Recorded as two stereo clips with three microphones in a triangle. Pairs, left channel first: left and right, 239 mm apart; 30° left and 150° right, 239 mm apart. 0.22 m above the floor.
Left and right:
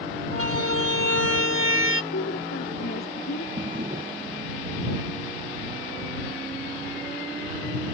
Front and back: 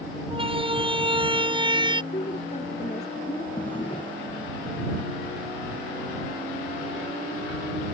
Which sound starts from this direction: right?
A siren, at 0.3 s.